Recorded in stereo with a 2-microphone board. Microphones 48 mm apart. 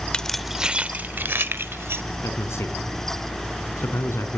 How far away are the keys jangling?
About 0.5 m.